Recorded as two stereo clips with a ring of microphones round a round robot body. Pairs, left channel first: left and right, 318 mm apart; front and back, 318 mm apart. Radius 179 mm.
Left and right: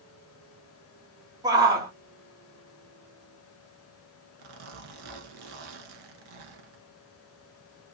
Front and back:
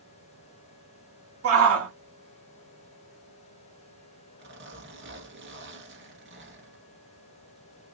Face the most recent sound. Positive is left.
turn(degrees=-120)